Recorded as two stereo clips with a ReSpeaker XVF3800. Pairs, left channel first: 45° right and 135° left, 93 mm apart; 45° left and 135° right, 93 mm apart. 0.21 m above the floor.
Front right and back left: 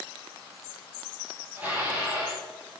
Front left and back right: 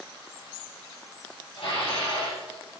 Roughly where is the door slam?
I don't hear a door slam.